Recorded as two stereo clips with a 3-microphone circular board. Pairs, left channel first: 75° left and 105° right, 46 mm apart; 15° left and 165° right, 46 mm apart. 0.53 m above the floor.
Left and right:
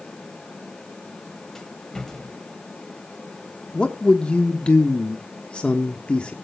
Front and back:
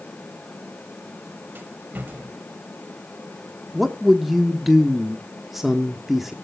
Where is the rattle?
155° left, 1.9 m.